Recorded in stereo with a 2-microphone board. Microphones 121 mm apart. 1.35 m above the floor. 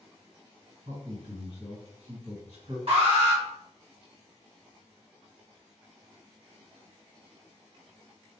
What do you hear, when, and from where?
0.8 s a man speaking: 60° right (ahead or behind), 1.7 m
2.9 s an alarm: 55° right (ahead or behind), 1.6 m